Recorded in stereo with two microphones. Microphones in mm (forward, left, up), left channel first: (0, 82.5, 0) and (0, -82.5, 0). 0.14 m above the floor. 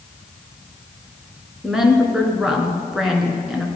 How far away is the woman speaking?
About 2 m.